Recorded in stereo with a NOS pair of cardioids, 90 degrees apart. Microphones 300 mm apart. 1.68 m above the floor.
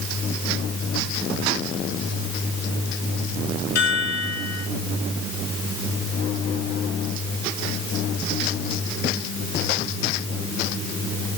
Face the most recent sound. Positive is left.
turn(degrees=60)